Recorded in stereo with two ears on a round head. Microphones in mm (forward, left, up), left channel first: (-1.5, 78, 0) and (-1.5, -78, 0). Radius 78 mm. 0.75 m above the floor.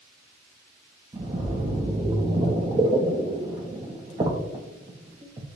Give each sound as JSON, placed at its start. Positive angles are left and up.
{"t": 1.1, "sound": "a splash", "side_deg": -25, "distance_m": 0.7}